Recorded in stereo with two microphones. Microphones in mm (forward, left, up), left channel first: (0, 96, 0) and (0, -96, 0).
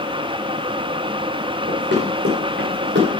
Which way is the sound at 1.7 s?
70° right (ahead or behind).